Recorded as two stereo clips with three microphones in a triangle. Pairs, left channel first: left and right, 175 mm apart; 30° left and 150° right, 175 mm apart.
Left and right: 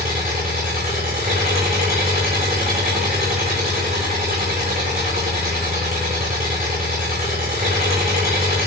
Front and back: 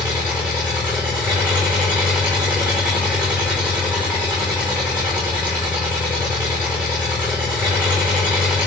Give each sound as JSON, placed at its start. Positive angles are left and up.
{"t": 0.0, "sound": "an engine running", "azimuth_deg": -65, "distance_m": 1.8}